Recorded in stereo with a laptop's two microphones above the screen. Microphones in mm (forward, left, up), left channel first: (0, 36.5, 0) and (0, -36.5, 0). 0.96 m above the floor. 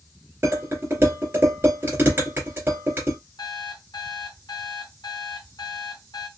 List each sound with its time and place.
0.4 s dishes clattering: 35° right (ahead or behind), 2.5 m
3.4 s an alarm clock: 80° left, 2.5 m